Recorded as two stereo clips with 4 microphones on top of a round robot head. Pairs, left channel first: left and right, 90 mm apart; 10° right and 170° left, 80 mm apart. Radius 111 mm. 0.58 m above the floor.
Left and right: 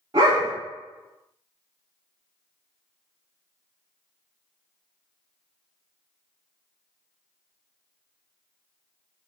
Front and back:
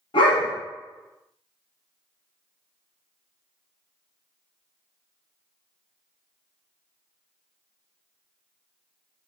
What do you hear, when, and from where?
0.1 s a dog barking: 35° right, 1.5 m